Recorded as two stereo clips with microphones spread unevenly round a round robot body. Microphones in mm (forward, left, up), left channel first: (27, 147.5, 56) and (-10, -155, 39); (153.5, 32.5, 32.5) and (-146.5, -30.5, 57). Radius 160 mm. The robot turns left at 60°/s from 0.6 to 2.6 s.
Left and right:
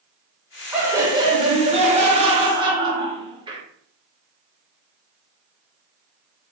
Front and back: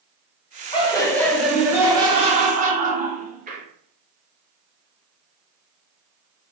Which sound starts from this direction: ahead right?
Laughter, at 0.7 s.